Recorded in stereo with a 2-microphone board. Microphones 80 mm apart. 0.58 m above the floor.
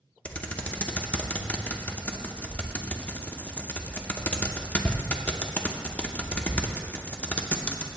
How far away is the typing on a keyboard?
About 0.7 m.